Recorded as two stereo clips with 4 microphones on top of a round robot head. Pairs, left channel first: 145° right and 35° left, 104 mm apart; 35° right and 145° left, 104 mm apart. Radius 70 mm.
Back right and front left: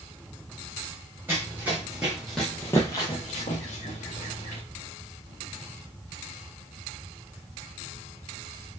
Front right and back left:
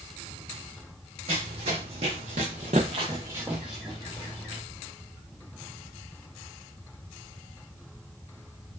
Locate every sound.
1.3 s running footsteps: 110° left, 1.1 m; by 4.6 s 110° right, 1.0 m